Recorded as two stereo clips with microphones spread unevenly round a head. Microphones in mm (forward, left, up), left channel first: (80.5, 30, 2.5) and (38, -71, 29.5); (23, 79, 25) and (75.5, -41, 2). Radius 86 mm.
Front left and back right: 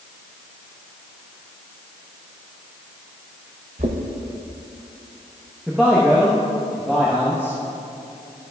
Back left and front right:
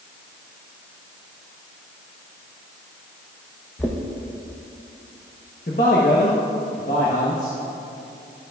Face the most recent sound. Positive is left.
turn(degrees=160)